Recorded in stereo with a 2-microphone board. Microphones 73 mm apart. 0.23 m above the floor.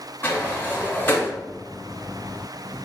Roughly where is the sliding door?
Left.